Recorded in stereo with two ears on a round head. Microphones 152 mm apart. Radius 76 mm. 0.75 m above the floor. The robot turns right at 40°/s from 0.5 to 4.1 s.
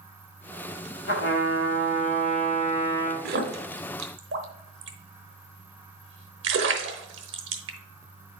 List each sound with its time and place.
1.1 s a trumpet: 80° left, 1.9 m; by 3.1 s 165° left, 1.9 m
3.2 s a splash: 55° right (ahead or behind), 1.0 m; by 7.8 s 75° right (ahead or behind), 1.0 m